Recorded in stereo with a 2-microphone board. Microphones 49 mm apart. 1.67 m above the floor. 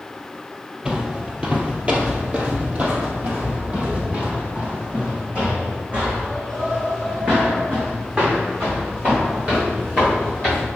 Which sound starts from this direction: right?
Footsteps, at 0.8 s.